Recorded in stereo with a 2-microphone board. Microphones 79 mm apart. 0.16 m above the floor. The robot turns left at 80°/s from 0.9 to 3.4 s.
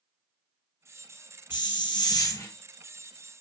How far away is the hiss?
About 0.7 m.